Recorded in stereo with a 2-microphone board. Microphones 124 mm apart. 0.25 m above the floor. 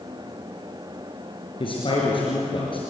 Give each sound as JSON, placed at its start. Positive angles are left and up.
{"t": 1.6, "sound": "a man speaking", "side_deg": 45, "distance_m": 5.0}